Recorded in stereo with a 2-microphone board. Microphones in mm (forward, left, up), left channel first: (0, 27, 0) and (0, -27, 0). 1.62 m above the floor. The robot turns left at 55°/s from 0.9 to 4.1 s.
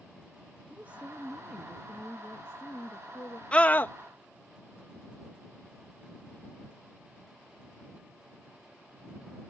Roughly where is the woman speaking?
Behind right.